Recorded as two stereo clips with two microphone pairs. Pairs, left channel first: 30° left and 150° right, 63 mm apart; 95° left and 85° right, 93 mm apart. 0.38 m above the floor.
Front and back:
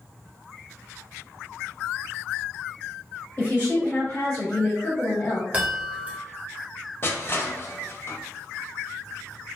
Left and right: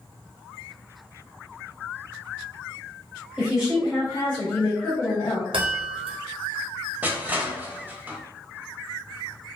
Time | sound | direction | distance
3.4 | a woman speaking | 5° right | 1.4 m
5.5 | a chime | 85° right | 0.9 m
7.0 | crushing | 20° right | 0.5 m